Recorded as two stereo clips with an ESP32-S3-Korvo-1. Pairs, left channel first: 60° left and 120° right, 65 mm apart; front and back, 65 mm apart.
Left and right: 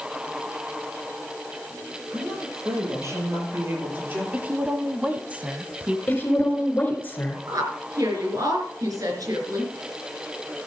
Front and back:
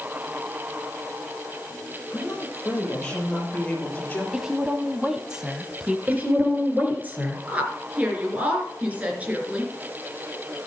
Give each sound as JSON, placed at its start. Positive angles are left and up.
{"t": 2.1, "sound": "a woman speaking", "azimuth_deg": -90, "distance_m": 7.0}
{"t": 4.3, "sound": "a woman speaking", "azimuth_deg": -115, "distance_m": 1.0}
{"t": 6.1, "sound": "a woman speaking", "azimuth_deg": 120, "distance_m": 3.0}
{"t": 7.5, "sound": "a woman speaking", "azimuth_deg": -115, "distance_m": 3.5}